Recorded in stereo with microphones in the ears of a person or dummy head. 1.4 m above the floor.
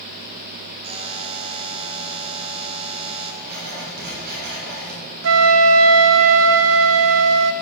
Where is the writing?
55° right (ahead or behind), 7 m.